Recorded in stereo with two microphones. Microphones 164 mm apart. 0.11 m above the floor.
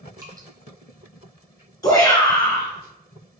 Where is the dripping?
20° right (ahead or behind), 0.8 m.